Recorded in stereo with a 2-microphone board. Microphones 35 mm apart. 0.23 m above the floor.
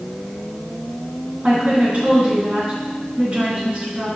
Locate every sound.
1.4 s a woman speaking: 45° right (ahead or behind), 2.5 m